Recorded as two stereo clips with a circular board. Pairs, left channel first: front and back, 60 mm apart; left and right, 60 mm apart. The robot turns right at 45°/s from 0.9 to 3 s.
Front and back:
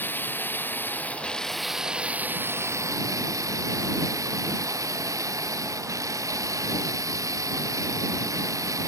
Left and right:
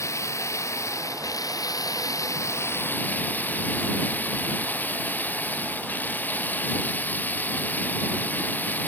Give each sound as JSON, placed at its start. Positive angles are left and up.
{"t": 0.0, "sound": "running water", "azimuth_deg": 55}